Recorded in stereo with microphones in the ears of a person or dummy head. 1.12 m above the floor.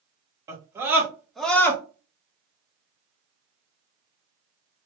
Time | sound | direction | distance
0.5 | a scream | 20° right (ahead or behind) | 1.8 m